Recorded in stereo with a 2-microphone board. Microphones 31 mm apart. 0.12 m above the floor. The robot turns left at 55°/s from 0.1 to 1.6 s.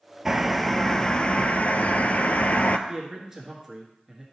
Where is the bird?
165° right, 0.5 m; by 2.8 s 120° left, 0.5 m.